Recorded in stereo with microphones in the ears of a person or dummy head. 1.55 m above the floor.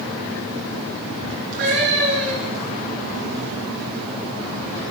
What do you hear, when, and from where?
1.5 s a cat meowing: 60° right (ahead or behind), 8 m